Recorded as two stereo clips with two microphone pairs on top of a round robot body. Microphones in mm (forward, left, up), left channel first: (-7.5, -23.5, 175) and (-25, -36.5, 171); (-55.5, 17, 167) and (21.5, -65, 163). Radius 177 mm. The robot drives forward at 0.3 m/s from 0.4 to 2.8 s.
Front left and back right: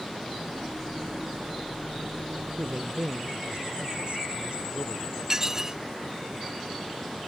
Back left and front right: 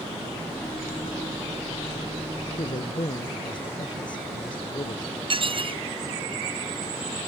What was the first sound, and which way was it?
A man speaking, straight behind.